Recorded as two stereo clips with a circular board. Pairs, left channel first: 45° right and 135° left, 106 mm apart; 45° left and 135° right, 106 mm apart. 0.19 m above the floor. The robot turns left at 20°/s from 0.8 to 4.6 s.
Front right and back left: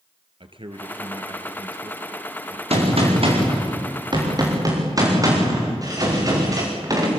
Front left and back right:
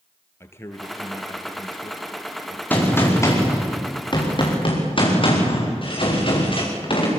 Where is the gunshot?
120° left, 6.5 m; by 7.1 s 80° left, 6.5 m.